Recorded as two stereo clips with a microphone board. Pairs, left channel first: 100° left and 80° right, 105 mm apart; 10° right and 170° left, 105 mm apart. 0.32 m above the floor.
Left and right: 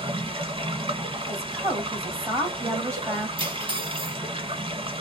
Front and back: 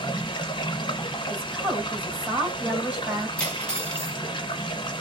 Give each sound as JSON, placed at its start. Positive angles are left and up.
{"t": 0.0, "sound": "running water", "azimuth_deg": -50, "distance_m": 1.0}
{"t": 1.3, "sound": "a woman speaking", "azimuth_deg": -120, "distance_m": 1.7}
{"t": 3.4, "sound": "cutlery clinking", "azimuth_deg": -90, "distance_m": 1.2}